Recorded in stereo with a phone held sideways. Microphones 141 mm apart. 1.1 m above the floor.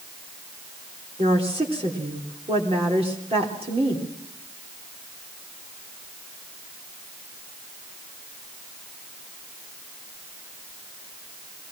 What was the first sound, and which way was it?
A woman speaking, 45° right (ahead or behind).